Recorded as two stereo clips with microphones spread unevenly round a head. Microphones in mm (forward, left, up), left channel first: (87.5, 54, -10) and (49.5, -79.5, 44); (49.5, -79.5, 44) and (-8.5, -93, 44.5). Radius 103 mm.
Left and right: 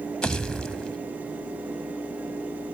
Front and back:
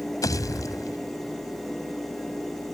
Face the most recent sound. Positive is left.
turn(degrees=-10)